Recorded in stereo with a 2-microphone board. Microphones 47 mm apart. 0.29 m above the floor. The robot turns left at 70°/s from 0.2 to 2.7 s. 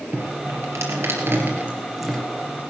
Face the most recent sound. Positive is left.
turn(degrees=135)